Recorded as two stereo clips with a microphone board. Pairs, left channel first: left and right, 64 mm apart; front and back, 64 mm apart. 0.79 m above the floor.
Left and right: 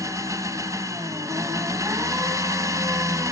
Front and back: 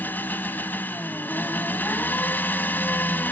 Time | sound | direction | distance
0.0 | an engine running | 60° right | 1.7 m